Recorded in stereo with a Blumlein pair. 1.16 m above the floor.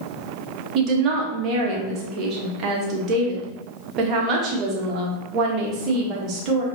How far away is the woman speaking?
About 1.2 m.